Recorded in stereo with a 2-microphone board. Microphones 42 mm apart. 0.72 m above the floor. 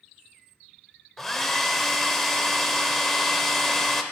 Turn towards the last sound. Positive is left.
turn(degrees=5)  # may be behind; listen again after turning